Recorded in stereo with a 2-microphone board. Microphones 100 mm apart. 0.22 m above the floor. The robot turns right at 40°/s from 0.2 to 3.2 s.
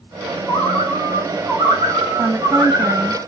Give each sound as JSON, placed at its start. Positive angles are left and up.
{"t": 0.5, "sound": "a bird", "azimuth_deg": 150, "distance_m": 2.5}
{"t": 2.2, "sound": "a woman speaking", "side_deg": 5, "distance_m": 0.9}